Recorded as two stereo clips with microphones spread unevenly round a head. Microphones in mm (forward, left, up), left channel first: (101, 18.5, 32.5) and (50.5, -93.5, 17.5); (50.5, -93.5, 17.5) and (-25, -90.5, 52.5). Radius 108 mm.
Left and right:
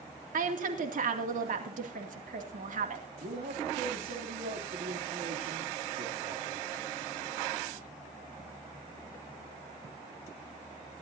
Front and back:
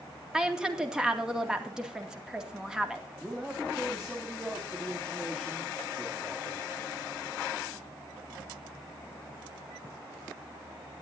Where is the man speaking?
105° right, 2.5 m.